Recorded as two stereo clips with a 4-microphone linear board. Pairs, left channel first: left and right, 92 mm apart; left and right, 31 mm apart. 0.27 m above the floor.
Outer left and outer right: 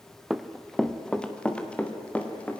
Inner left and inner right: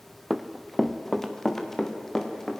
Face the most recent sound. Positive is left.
turn(degrees=15)  # may be behind; listen again after turning